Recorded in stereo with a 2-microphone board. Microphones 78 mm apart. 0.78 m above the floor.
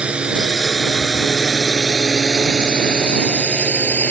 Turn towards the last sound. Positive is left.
turn(degrees=20)  # may be behind; listen again after turning